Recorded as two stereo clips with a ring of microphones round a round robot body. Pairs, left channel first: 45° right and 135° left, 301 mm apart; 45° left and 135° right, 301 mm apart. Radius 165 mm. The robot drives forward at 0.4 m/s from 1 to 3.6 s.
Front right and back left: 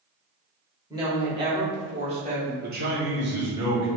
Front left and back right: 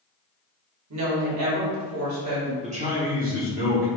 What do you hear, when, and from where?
0.9 s a woman speaking: 150° right, 1.6 m; by 2.5 s 160° right, 2 m
2.6 s a man speaking: 170° left, 1.0 m; by 3.9 s 175° left, 1.3 m